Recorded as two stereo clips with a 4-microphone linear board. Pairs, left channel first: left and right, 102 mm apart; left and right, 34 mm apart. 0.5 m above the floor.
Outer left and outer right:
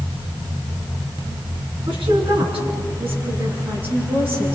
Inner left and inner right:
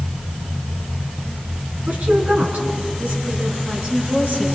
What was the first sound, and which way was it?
A woman speaking, 65° right (ahead or behind).